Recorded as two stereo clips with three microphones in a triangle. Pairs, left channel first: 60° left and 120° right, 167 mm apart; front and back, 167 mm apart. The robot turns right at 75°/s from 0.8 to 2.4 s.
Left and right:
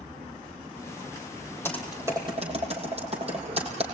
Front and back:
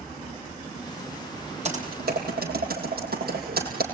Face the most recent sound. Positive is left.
turn(degrees=-170)